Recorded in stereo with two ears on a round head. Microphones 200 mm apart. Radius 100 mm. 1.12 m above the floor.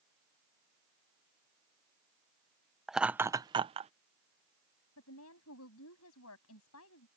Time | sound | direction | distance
2.9 | laughter | centre (ahead or behind) | ?
5.0 | a woman speaking | 70° left (ahead or behind) | ?